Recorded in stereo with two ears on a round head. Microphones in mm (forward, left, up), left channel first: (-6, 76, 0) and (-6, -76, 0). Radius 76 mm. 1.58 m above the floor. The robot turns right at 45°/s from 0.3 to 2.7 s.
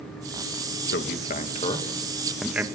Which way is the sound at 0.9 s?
70° left (ahead or behind).